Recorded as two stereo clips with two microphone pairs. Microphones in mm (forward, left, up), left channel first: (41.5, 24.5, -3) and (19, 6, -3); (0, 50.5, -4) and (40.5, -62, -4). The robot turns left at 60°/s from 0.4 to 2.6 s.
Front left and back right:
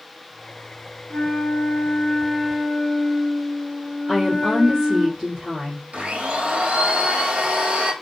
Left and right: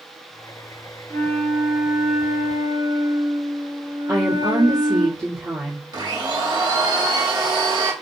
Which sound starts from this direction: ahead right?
A woman speaking, at 4.1 s.